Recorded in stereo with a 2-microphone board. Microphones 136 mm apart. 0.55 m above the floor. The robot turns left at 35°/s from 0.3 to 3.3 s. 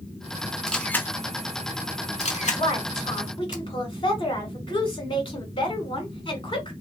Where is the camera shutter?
5° left (ahead or behind), 0.7 m; by 3.6 s 70° left (ahead or behind), 0.7 m.